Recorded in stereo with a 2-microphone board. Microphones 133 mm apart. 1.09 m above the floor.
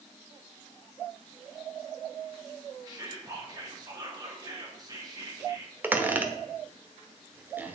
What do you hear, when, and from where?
2.9 s whispering: 30° right (ahead or behind), 3 m
5.8 s a squeak: 15° right (ahead or behind), 1.1 m